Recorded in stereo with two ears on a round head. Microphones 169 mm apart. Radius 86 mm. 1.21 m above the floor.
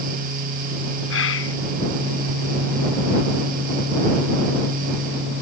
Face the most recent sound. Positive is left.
turn(degrees=80)